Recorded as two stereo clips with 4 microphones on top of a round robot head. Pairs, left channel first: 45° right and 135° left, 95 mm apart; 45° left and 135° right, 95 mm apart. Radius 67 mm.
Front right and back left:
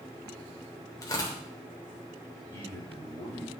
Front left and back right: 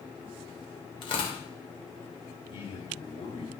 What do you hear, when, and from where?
1.0 s tearing paper: 10° left, 3 m
2.5 s a man speaking: 15° left, 4.5 m